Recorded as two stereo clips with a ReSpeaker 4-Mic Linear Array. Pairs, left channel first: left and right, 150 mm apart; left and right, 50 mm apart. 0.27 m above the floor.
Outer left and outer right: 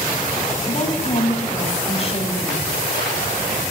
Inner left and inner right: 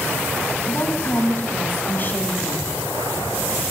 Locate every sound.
0.7 s a woman speaking: 50° left (ahead or behind), 2 m; by 2.7 s 35° left (ahead or behind), 2 m